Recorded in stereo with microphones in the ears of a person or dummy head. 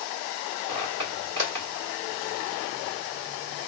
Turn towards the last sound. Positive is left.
turn(degrees=-20)  # may be behind; listen again after turning